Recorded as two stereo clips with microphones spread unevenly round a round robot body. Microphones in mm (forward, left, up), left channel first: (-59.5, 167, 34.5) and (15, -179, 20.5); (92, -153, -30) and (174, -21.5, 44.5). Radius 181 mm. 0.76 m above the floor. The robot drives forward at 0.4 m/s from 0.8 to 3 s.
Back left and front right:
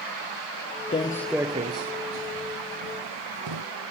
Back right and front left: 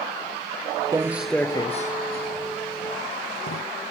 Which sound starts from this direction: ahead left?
Footsteps, at 0.9 s.